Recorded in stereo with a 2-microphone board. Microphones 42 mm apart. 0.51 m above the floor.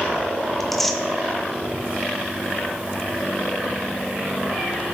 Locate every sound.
0.6 s tearing paper: 5° left (ahead or behind), 0.6 m